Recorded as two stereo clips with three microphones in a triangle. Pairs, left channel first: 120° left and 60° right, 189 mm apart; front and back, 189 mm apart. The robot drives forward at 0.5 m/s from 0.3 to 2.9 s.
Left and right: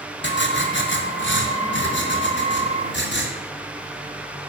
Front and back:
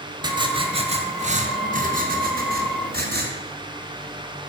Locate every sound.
0.2 s writing: 115° left, 1.6 m; by 3.3 s 145° left, 2.5 m